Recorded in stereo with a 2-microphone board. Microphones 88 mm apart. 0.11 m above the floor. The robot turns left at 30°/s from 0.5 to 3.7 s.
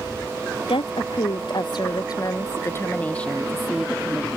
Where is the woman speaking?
90° left; by 4.3 s straight ahead.